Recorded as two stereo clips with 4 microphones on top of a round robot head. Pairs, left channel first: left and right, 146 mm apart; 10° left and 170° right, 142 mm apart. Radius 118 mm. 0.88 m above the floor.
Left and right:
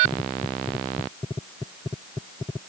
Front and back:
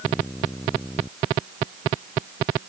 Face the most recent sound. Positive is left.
No sound to turn to.